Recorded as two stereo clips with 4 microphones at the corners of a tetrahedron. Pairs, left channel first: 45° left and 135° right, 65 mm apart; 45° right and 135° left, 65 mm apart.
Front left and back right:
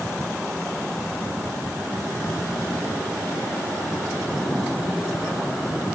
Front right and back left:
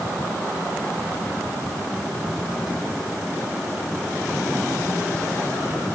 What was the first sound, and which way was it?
Only background noise.